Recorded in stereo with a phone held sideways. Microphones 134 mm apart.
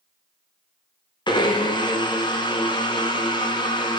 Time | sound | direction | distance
1.3 | a blender | 35° left (ahead or behind) | 1.3 m